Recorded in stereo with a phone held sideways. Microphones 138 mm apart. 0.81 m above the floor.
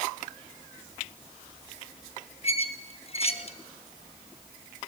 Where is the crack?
I don't hear a crack.